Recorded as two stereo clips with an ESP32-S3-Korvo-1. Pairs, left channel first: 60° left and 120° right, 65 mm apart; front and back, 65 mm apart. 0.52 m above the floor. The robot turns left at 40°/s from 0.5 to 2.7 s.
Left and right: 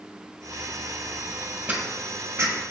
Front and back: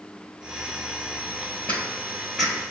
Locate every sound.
1.7 s footsteps: 55° right, 0.9 m; by 2.6 s 90° right, 0.9 m